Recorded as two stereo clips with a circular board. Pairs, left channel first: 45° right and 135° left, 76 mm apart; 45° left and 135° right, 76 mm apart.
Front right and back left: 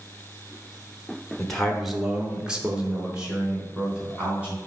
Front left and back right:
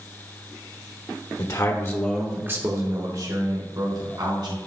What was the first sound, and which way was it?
A man speaking, 40° left.